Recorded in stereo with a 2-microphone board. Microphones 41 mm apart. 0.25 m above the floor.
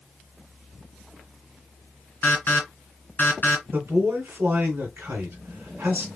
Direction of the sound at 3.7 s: 50° right (ahead or behind).